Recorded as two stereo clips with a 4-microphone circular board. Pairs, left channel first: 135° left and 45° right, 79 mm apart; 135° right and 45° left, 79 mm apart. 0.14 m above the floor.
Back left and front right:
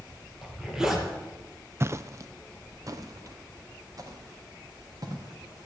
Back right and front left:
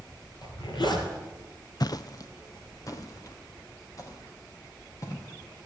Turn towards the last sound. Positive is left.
turn(degrees=-85)